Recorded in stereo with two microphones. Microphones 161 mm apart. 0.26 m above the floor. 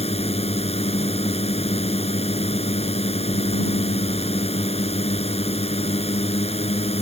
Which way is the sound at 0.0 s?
40° left (ahead or behind).